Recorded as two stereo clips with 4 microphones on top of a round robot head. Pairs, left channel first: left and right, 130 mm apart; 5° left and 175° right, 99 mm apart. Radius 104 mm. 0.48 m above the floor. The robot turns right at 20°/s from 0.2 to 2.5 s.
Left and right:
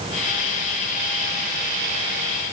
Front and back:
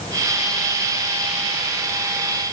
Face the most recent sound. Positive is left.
No sound to turn to.